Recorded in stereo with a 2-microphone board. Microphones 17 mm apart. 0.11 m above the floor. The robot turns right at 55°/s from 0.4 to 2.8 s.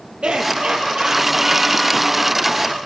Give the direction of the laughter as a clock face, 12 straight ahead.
3 o'clock.